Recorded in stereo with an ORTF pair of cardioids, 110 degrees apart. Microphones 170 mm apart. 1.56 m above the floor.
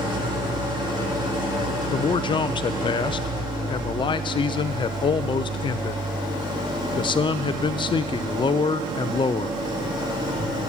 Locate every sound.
0.0 s an engine running: 30° right, 2 m
1.9 s a man speaking: 30° left, 0.6 m